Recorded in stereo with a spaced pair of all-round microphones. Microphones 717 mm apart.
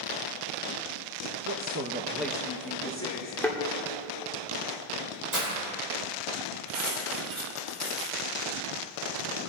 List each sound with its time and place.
1.4 s a man speaking: 40° right (ahead or behind), 0.6 m; by 3.3 s 20° left (ahead or behind), 1.6 m
3.4 s a thud: 5° left (ahead or behind), 1.4 m
5.3 s breaking glass: 65° right (ahead or behind), 4.5 m
6.7 s cutlery clinking: 55° right (ahead or behind), 3.5 m